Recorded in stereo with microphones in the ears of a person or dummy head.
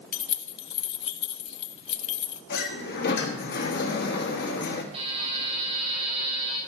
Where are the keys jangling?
30° left (ahead or behind), 0.7 m.